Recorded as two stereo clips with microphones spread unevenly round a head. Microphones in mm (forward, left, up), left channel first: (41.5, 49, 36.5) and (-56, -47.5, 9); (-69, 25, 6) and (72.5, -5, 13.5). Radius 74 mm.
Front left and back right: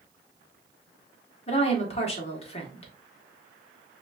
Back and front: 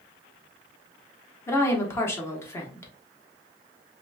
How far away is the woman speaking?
About 1.1 m.